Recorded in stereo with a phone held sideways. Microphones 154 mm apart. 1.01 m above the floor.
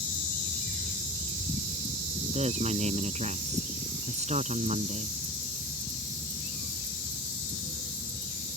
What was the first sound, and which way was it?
A woman speaking, 50° right (ahead or behind).